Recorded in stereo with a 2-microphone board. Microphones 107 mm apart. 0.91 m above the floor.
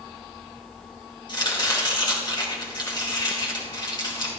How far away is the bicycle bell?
I don't hear a bicycle bell.